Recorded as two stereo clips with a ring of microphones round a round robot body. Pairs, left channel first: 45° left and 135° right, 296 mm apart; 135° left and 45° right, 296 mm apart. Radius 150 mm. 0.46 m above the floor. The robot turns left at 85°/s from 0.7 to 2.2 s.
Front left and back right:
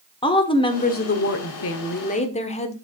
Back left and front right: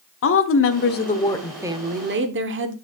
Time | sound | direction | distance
0.2 | a woman speaking | 110° left | 1.1 m